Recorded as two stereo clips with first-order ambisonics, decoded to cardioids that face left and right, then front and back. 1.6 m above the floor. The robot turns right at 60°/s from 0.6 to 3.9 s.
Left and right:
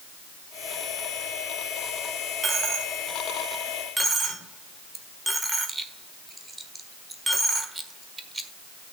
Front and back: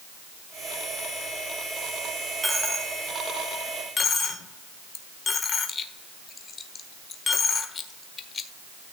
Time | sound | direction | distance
2.4 | a dropped coin | 110° right | 1.3 m